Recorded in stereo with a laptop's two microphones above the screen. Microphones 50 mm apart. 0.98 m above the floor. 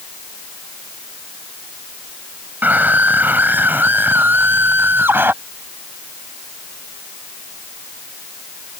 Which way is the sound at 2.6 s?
40° right (ahead or behind).